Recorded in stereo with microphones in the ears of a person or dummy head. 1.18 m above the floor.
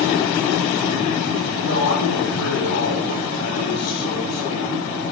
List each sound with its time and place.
1.6 s a man speaking: 85° left, 9 m